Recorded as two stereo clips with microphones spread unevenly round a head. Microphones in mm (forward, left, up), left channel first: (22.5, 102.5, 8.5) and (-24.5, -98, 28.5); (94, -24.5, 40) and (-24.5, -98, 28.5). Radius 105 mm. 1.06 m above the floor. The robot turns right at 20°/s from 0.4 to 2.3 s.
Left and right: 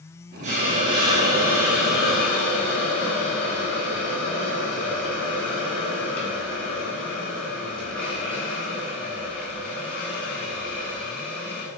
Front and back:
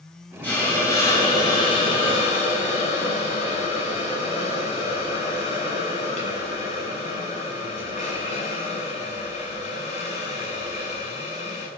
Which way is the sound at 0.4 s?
45° right.